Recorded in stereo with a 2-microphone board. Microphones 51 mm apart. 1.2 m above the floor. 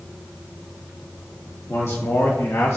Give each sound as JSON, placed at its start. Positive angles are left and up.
{"t": 1.7, "sound": "a man speaking", "side_deg": 75, "distance_m": 2.5}